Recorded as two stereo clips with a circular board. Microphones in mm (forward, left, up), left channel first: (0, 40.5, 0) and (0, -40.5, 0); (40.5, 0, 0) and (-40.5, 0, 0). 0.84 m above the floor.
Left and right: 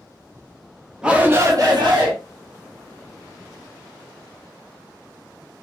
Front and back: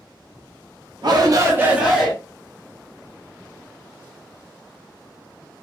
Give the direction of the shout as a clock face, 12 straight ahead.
6 o'clock.